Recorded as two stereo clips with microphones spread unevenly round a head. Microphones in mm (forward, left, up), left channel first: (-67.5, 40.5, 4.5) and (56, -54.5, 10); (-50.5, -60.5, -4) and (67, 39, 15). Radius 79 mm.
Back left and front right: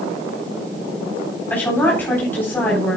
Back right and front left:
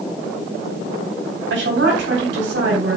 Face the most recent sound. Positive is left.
turn(degrees=65)